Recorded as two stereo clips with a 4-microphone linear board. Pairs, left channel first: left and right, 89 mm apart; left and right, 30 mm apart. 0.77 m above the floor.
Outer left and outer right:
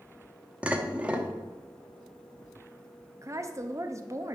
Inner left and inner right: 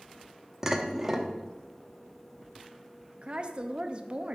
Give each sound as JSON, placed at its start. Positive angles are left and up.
{"t": 0.6, "sound": "dishes clattering", "side_deg": -15, "distance_m": 0.5}
{"t": 3.2, "sound": "a woman speaking", "side_deg": -35, "distance_m": 0.5}